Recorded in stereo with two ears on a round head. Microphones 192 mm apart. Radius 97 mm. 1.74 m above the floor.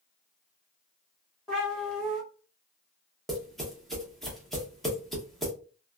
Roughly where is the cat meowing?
Centre.